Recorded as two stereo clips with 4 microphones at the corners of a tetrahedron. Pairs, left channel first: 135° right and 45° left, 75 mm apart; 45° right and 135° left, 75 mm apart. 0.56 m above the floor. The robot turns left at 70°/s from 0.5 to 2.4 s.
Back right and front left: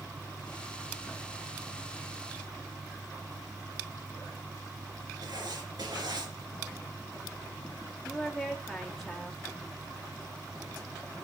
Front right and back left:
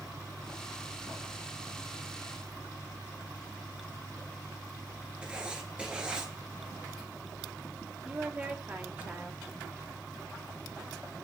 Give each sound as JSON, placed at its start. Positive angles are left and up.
{"t": 5.2, "sound": "writing", "azimuth_deg": 60, "distance_m": 2.0}
{"t": 8.1, "sound": "a woman speaking", "azimuth_deg": 140, "distance_m": 1.2}